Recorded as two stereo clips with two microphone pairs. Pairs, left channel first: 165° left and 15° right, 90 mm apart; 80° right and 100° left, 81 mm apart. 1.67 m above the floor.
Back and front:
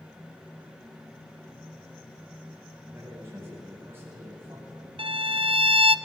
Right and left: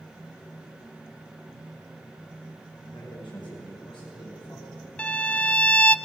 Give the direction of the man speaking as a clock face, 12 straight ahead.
3 o'clock.